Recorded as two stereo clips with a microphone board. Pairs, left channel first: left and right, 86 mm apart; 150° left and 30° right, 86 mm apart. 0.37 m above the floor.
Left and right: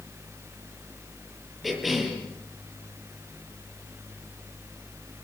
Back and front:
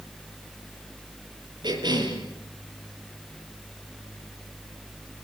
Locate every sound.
1.6 s a cough: straight ahead, 8 m